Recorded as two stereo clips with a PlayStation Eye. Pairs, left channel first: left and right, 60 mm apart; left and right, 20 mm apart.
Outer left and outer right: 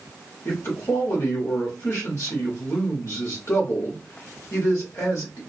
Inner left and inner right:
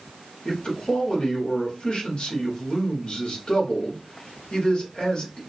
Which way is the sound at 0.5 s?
50° left (ahead or behind).